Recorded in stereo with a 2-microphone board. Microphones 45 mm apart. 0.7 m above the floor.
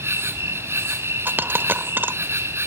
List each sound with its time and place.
0.0 s an insect: 65° right (ahead or behind), 1.9 m
1.2 s a dropped coin: 50° right (ahead or behind), 1.1 m